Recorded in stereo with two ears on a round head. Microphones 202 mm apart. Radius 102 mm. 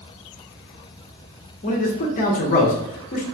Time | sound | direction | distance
1.6 | a man speaking | 35° left (ahead or behind) | 0.8 m